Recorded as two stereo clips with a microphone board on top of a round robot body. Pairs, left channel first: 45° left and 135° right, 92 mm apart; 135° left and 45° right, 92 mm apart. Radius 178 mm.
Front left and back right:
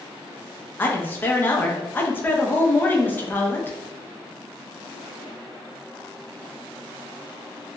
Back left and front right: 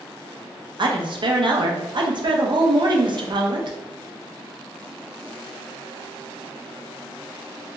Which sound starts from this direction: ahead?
A woman speaking, at 0.8 s.